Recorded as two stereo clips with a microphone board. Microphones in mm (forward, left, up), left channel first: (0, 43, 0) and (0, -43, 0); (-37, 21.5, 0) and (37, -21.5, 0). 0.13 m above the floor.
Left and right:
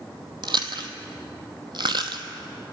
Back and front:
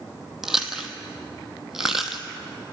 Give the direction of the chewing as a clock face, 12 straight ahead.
4 o'clock.